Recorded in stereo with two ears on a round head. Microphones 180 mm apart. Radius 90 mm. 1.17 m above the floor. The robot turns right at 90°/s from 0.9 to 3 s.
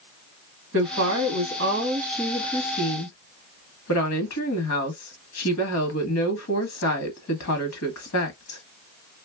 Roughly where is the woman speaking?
Right.